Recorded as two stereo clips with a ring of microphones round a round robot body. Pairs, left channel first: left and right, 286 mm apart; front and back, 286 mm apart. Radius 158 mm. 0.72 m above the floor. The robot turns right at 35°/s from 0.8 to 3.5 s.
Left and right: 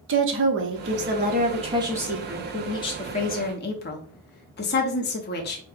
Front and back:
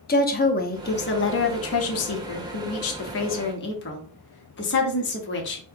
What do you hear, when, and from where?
0.1 s a woman speaking: 50° right, 0.9 m; by 5.6 s 40° left, 0.9 m